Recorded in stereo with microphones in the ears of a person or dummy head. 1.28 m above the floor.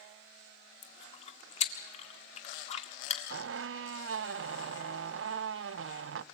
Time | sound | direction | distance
0.8 | chewing | 40° left (ahead or behind) | 1.7 m
3.3 | a squeak | 75° right (ahead or behind) | 0.6 m